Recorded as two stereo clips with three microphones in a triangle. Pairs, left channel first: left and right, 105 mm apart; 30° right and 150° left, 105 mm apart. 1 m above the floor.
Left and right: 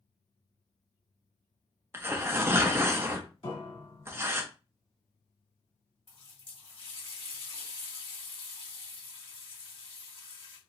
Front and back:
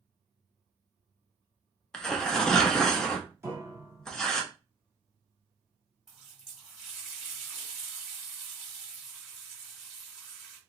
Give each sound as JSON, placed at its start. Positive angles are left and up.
{"t": 1.9, "sound": "tearing paper", "azimuth_deg": -105, "distance_m": 0.6}
{"t": 3.4, "sound": "a piano", "azimuth_deg": 90, "distance_m": 1.4}
{"t": 6.1, "sound": "a running tap", "azimuth_deg": 65, "distance_m": 1.4}